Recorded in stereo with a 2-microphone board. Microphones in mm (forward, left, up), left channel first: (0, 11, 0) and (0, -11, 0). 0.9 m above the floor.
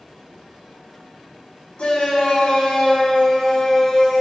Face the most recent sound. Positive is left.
turn(degrees=30)  # may be behind; listen again after turning